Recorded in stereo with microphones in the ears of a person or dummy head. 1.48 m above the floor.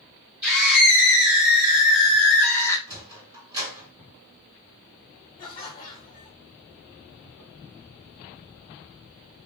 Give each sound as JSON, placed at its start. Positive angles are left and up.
{"t": 0.4, "sound": "a scream", "side_deg": -5, "distance_m": 1.7}
{"t": 2.9, "sound": "a sliding door", "side_deg": -25, "distance_m": 2.5}
{"t": 5.4, "sound": "laughter", "side_deg": 25, "distance_m": 1.0}